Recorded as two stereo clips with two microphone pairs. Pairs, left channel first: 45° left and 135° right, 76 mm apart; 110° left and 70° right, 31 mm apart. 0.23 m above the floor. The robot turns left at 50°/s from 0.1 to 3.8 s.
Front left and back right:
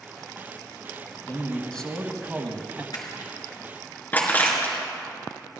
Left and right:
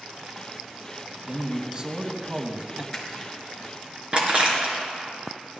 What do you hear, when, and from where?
1.3 s a man speaking: straight ahead, 1.6 m; by 2.8 s 80° right, 1.6 m
2.9 s crushing: 25° left, 3.5 m; by 4.8 s 20° right, 3.5 m